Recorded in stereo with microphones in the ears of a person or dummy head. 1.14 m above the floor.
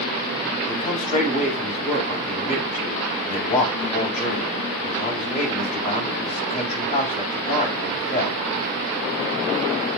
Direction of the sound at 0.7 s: 35° left (ahead or behind).